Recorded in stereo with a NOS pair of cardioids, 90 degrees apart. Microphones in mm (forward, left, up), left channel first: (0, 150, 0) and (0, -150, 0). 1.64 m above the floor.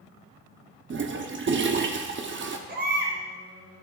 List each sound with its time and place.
0.9 s a toilet flushing: 35° right, 1.0 m
2.7 s a baby crying: 35° right, 4 m